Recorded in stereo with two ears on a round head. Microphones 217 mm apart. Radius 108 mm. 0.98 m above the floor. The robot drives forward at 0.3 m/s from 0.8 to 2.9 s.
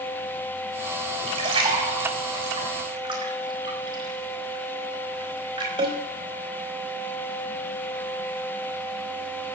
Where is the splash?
25° right (ahead or behind), 4 m; by 6.0 s 20° right (ahead or behind), 4.5 m.